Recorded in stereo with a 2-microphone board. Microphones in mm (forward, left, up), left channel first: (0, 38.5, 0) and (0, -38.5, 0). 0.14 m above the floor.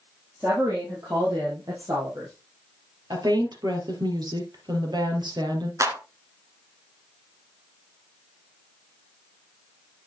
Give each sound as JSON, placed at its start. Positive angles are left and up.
{"t": 0.4, "sound": "a woman speaking", "side_deg": -35, "distance_m": 4.0}
{"t": 3.1, "sound": "a woman speaking", "side_deg": -65, "distance_m": 3.0}
{"t": 5.8, "sound": "a clap", "side_deg": -40, "distance_m": 1.6}